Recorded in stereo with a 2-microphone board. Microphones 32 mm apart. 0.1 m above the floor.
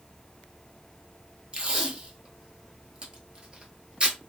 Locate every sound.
1.5 s tape being pulled: 30° right (ahead or behind), 0.9 m